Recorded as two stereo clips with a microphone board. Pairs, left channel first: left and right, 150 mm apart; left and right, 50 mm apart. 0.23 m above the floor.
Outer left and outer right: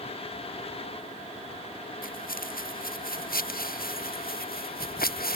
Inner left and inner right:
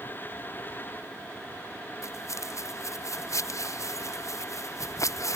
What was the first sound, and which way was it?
Footsteps, 70° left (ahead or behind).